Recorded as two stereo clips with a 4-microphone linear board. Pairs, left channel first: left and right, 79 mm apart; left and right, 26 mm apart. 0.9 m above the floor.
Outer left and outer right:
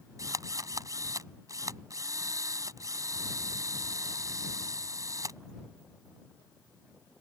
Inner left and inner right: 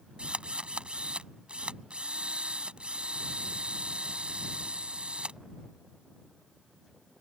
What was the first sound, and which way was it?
A drill, 45° right (ahead or behind).